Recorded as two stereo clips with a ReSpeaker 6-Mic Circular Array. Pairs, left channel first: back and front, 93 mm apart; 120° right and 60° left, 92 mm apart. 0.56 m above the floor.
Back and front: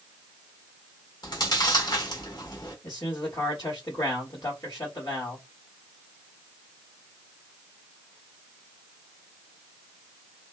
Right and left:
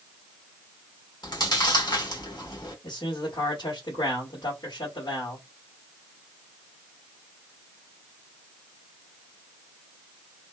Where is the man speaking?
135° right, 1.6 m.